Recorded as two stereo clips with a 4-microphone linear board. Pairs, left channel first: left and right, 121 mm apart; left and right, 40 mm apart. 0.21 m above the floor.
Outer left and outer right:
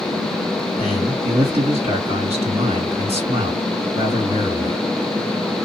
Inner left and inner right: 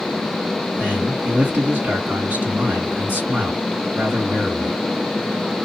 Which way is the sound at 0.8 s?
55° right (ahead or behind).